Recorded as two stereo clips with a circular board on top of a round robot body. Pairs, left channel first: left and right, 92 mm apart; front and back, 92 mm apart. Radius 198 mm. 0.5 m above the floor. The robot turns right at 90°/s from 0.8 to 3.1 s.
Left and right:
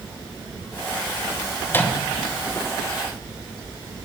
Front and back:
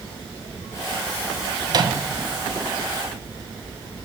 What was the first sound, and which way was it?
A microwave, 145° left.